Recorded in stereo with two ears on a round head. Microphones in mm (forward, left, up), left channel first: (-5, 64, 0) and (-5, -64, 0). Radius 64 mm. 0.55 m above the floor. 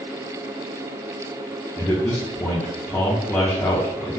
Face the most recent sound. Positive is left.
turn(degrees=15)  # may be behind; listen again after turning